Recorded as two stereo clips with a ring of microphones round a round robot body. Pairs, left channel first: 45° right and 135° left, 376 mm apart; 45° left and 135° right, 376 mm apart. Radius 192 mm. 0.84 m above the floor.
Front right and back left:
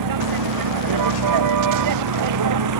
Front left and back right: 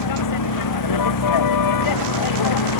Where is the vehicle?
90° left; by 2.8 s 85° left.